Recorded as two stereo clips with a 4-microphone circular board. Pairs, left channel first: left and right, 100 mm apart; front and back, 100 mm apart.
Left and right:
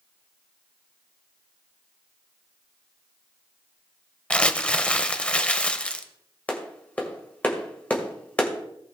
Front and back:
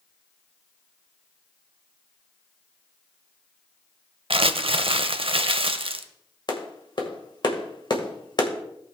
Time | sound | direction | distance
4.3 | crumpling | 170° left | 0.7 m
6.5 | a clap | 20° left | 1.8 m